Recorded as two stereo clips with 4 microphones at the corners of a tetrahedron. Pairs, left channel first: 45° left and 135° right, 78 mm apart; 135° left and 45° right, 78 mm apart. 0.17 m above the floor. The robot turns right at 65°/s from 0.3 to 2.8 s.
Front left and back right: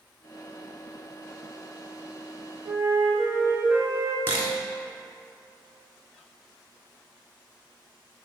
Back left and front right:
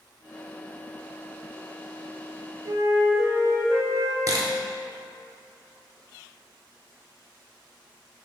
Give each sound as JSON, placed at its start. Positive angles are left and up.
{"t": 2.6, "sound": "a flute", "azimuth_deg": -85, "distance_m": 0.9}
{"t": 4.3, "sound": "a camera shutter", "azimuth_deg": -80, "distance_m": 0.7}